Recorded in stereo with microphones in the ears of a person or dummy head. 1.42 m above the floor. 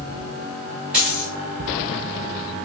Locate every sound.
0.9 s a dropped coin: 5° right (ahead or behind), 1.1 m